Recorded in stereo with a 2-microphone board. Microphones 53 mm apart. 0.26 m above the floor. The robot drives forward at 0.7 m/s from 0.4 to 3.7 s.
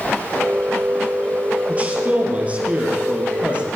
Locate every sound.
1.7 s a man speaking: 25° right (ahead or behind), 5 m; by 3.7 s 20° right (ahead or behind), 6.5 m